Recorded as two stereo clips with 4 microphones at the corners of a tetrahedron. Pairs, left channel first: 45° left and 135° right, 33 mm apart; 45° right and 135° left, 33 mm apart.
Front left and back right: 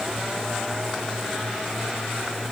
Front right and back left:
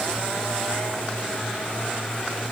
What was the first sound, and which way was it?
Only background noise.